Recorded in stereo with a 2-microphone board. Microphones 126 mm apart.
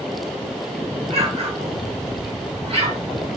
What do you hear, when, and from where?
1.1 s an explosion: 50° right (ahead or behind), 2 m